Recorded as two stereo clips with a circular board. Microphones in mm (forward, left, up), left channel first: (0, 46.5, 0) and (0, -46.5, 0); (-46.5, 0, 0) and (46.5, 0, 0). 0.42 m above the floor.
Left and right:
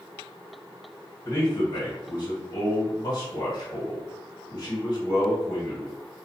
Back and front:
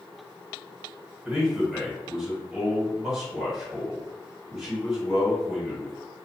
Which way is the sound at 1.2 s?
85° left.